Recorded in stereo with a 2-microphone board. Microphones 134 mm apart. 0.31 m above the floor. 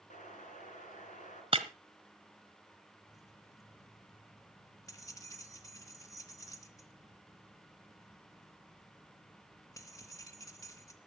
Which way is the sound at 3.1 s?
25° left (ahead or behind).